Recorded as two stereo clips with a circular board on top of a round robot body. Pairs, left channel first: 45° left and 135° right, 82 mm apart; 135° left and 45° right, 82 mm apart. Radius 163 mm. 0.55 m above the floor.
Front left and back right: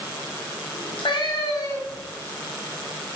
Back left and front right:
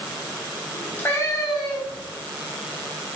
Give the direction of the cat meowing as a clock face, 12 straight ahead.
10 o'clock.